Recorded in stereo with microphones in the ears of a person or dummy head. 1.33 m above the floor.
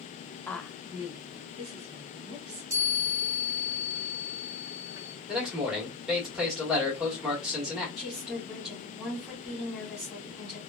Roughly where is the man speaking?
Centre.